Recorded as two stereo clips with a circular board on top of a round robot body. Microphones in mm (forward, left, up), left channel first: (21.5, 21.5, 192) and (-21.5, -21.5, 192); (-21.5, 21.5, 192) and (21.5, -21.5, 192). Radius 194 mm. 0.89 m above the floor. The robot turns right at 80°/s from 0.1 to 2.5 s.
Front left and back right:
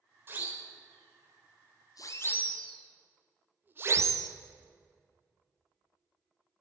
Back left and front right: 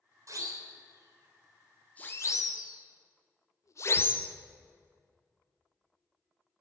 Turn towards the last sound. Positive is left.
turn(degrees=-160)